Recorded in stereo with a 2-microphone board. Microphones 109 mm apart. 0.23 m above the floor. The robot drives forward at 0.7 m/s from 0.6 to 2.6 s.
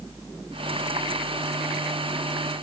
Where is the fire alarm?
I don't hear a fire alarm.